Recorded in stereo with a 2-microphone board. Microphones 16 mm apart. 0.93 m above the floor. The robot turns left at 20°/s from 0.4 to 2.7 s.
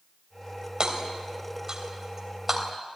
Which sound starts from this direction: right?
Hammering, at 0.8 s.